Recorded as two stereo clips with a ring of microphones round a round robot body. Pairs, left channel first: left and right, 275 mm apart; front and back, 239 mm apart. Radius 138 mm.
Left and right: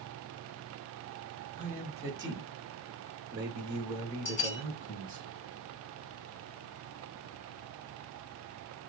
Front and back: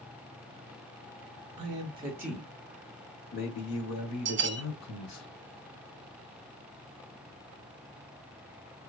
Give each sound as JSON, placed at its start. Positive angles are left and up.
{"t": 1.6, "sound": "a man speaking", "azimuth_deg": -165, "distance_m": 1.3}
{"t": 4.2, "sound": "a bell", "azimuth_deg": 140, "distance_m": 0.7}